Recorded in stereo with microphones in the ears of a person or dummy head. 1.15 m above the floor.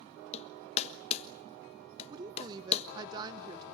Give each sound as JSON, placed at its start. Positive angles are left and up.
{"t": 0.3, "sound": "hammering", "side_deg": 35, "distance_m": 1.2}
{"t": 2.1, "sound": "a woman speaking", "side_deg": -25, "distance_m": 0.8}